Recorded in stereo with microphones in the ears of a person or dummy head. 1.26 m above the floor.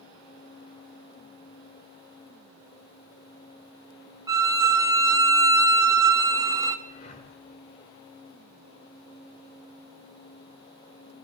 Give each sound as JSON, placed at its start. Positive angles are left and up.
{"t": 4.3, "sound": "a violin", "side_deg": -15, "distance_m": 0.8}
{"t": 6.8, "sound": "breathing", "side_deg": 40, "distance_m": 1.7}